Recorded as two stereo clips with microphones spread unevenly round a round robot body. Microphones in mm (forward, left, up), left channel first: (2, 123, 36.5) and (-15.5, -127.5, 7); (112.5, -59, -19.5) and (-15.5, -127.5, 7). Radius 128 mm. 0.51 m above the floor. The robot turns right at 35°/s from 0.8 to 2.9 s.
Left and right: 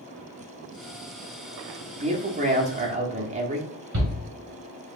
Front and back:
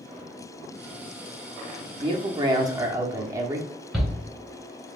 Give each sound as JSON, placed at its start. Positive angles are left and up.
{"t": 2.0, "sound": "a man speaking", "azimuth_deg": -115, "distance_m": 1.1}
{"t": 3.9, "sound": "a shout", "azimuth_deg": -60, "distance_m": 2.5}